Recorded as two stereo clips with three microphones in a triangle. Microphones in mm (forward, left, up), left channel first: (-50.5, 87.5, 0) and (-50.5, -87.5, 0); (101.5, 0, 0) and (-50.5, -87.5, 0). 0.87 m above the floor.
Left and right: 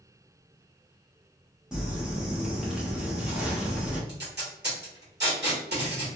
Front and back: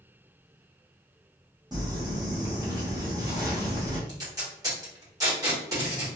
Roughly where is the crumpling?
Behind.